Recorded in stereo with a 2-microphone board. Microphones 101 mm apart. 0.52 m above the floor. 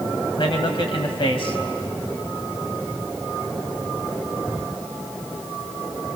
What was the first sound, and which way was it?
A man speaking, 60° left (ahead or behind).